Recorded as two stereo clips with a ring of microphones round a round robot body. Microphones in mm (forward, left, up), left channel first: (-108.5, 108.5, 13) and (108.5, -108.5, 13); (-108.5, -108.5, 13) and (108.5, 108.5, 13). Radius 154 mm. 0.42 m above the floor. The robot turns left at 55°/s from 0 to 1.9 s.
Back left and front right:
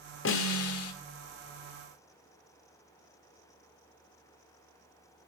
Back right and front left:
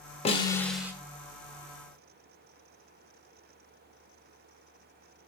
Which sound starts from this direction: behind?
A snare drum, at 0.2 s.